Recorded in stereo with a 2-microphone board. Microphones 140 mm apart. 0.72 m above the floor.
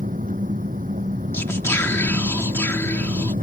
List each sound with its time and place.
0.0 s an engine running: 75° right (ahead or behind)
1.3 s whispering: 20° left (ahead or behind)